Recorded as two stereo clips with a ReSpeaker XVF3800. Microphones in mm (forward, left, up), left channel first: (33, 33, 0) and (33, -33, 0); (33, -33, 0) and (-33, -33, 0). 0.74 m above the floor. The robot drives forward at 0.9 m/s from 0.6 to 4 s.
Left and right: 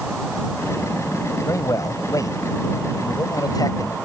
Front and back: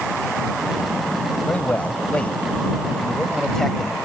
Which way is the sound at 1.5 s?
60° left.